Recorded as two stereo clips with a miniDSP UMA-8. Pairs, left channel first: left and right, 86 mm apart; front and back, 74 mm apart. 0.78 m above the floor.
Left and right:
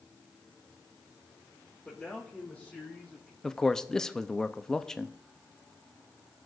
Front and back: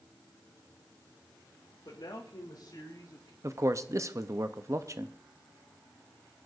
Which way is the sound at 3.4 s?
170° left.